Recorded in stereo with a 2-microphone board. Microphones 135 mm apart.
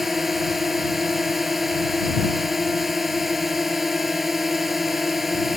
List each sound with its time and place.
0.0 s a drone: centre (ahead or behind)